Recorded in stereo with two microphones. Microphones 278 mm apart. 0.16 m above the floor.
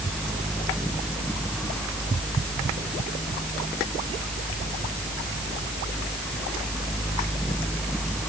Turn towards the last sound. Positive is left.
No sound to turn to.